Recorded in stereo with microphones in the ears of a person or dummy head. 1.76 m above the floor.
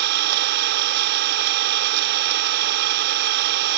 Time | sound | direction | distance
0.0 | an engine running | 55° right (ahead or behind) | ?